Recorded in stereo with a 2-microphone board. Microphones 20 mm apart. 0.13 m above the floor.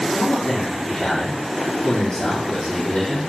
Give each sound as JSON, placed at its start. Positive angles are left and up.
{"t": 0.1, "sound": "a man speaking", "side_deg": 55, "distance_m": 4.0}